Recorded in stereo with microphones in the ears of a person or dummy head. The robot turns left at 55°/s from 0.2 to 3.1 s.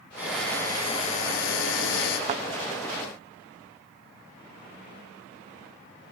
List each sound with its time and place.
0.2 s a drill: 170° right, 7.5 m; by 2.2 s 80° left, 7.5 m
2.3 s a thud: 30° right (ahead or behind), 0.6 m; by 2.4 s 25° right (ahead or behind), 0.6 m